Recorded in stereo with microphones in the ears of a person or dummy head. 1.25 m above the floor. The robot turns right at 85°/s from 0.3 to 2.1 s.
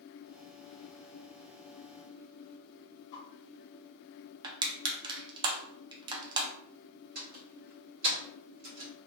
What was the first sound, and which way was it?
A whoosh, 25° left (ahead or behind).